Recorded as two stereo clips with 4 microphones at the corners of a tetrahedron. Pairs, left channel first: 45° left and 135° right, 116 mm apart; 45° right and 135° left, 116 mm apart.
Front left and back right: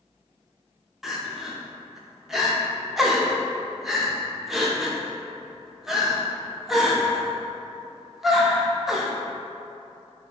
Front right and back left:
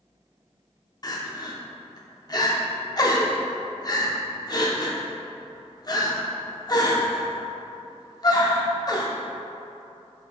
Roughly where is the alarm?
I don't hear an alarm.